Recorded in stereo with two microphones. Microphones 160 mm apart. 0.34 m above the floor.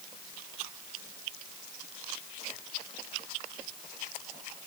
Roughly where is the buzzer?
I don't hear a buzzer.